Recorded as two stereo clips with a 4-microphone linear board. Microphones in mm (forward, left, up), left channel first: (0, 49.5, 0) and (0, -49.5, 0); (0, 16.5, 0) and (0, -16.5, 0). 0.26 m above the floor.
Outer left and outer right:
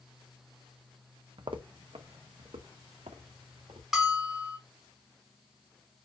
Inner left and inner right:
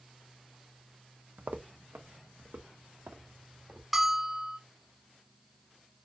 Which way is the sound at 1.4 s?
55° right (ahead or behind).